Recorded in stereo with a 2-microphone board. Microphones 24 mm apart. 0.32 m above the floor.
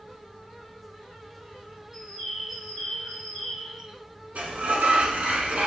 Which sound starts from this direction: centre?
A bird, at 1.9 s.